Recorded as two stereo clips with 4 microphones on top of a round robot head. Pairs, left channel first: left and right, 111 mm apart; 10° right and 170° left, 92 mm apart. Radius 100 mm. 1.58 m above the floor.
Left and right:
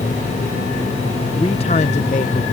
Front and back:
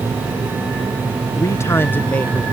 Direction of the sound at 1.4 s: 35° left.